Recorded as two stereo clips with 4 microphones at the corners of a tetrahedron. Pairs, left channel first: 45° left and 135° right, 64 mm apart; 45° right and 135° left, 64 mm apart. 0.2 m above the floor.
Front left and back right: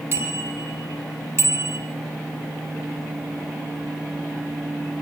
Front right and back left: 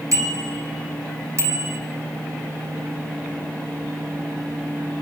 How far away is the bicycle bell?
About 6.5 m.